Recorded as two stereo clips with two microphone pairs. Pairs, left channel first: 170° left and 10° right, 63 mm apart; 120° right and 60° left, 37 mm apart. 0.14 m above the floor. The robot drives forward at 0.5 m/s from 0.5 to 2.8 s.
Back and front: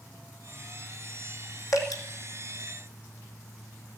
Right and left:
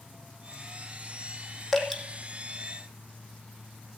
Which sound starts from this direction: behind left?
Dripping, at 1.7 s.